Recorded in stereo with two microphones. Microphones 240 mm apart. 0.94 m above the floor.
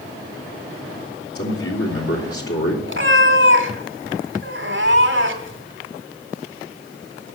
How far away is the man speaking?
About 3 m.